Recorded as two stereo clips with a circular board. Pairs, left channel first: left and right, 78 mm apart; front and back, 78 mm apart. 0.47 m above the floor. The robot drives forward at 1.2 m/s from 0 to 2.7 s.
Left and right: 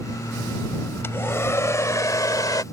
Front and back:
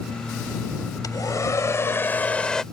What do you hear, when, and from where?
1.0 s a hair dryer: 35° left; by 2.6 s 80° left